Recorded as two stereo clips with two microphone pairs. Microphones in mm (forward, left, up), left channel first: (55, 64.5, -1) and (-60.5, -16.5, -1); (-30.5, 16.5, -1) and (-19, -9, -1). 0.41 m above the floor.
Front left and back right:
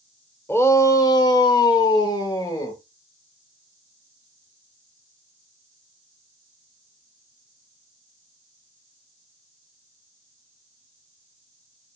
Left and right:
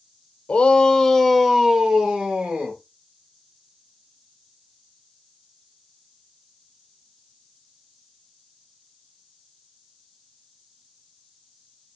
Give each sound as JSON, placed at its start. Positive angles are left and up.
{"t": 0.5, "sound": "a shout", "azimuth_deg": 100, "distance_m": 1.0}